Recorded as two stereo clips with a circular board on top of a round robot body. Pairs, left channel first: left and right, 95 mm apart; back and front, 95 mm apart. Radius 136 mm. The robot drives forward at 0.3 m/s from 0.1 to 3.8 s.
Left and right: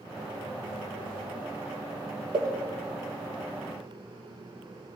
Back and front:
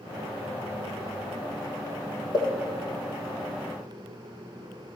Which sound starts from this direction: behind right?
A pop, at 2.3 s.